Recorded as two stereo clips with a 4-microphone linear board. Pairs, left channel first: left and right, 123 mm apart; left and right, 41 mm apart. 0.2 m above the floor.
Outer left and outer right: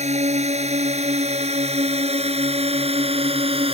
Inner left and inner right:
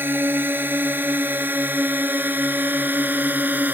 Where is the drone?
65° right (ahead or behind); by 3.8 s 50° right (ahead or behind).